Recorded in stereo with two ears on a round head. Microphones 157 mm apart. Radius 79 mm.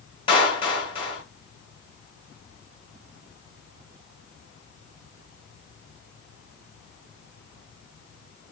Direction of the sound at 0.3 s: 25° left (ahead or behind).